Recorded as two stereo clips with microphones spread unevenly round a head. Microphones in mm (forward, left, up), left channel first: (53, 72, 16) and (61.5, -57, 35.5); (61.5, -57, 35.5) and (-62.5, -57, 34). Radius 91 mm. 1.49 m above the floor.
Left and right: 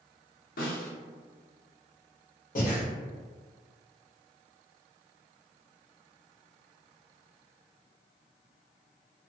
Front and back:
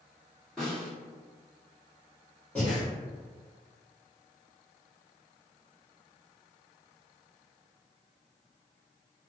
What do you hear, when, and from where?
0.6 s a snare drum: 85° left, 1.0 m
2.5 s breathing: 80° left, 0.9 m